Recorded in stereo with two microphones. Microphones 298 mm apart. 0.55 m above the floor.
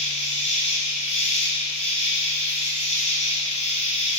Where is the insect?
25° left (ahead or behind), 2.5 m.